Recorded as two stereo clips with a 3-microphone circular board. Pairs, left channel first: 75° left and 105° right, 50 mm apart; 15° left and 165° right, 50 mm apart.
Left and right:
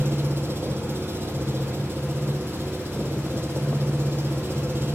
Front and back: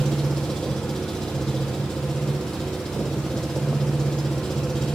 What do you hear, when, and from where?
0.0 s an engine running: 60° right, 9 m